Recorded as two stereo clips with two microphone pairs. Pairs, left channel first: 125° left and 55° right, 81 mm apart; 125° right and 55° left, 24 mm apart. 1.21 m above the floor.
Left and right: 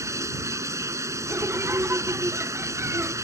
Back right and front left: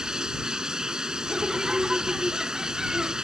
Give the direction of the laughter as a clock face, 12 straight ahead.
12 o'clock.